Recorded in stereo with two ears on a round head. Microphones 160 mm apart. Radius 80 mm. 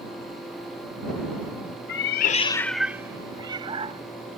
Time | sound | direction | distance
1.9 | a cat meowing | 70° left (ahead or behind) | ?